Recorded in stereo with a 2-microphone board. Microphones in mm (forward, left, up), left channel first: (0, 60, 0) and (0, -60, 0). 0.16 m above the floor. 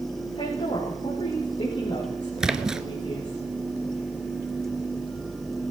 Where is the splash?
5° right (ahead or behind), 0.7 m.